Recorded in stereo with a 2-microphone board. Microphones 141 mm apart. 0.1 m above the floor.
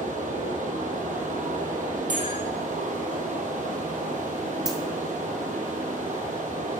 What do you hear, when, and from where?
0.0 s running water: 65° right (ahead or behind), 1.4 m
2.1 s a bell: 65° right (ahead or behind), 3.5 m
4.7 s a dropped coin: 25° right (ahead or behind), 2 m